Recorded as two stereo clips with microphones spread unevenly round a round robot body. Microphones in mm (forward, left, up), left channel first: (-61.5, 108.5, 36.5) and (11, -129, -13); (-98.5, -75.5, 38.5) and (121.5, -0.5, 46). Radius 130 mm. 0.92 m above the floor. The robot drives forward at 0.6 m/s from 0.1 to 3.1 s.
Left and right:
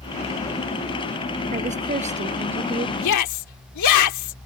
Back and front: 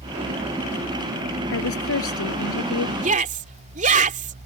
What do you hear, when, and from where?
1.5 s a woman speaking: 135° right
3.0 s a shout: 80° left